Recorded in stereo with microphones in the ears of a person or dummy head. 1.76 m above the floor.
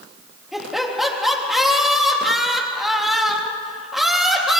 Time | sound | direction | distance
0.5 | laughter | centre (ahead or behind) | 3.5 m